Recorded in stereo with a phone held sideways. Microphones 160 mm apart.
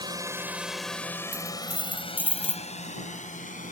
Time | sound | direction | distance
0.0 | a drone | 25° right (ahead or behind) | ?
1.3 | a dropped coin | 10° right (ahead or behind) | ?